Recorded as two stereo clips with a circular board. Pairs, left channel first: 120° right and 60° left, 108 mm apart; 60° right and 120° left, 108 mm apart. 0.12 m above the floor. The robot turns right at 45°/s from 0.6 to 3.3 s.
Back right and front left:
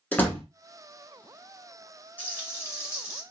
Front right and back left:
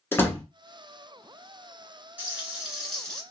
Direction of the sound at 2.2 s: 175° right.